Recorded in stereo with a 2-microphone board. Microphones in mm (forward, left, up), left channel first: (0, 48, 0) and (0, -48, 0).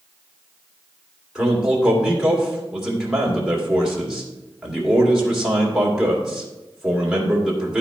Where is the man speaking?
5° right (ahead or behind), 2 m.